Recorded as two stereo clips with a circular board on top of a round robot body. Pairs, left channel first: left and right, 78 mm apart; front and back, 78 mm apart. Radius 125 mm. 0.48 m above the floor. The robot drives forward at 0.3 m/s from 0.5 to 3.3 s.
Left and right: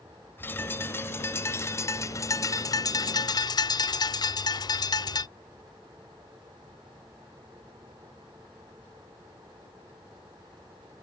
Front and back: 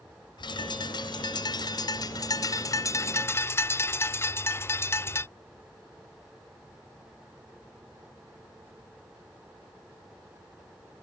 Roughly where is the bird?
Ahead left.